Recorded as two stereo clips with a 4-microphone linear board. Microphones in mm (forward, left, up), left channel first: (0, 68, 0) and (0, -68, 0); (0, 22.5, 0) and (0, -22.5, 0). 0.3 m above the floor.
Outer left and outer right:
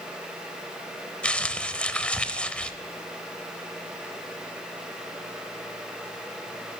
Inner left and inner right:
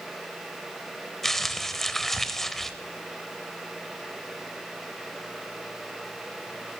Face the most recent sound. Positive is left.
turn(degrees=10)  # may be behind; listen again after turning